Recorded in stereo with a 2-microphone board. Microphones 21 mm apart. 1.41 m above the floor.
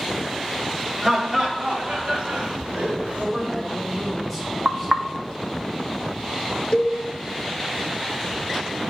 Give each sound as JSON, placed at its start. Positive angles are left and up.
{"t": 1.0, "sound": "laughter", "side_deg": -30, "distance_m": 1.7}
{"t": 3.2, "sound": "a woman speaking", "side_deg": -5, "distance_m": 4.0}
{"t": 4.7, "sound": "knocking", "side_deg": -30, "distance_m": 0.5}
{"t": 6.7, "sound": "a cowbell", "side_deg": 35, "distance_m": 1.3}